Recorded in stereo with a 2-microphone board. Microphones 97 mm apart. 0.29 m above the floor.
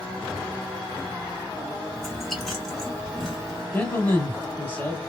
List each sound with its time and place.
1.9 s chewing: centre (ahead or behind), 1.6 m
3.7 s a man speaking: 20° left (ahead or behind), 1.5 m